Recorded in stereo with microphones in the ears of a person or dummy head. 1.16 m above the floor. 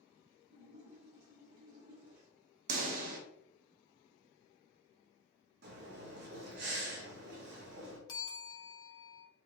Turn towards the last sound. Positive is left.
turn(degrees=25)  # may be behind; listen again after turning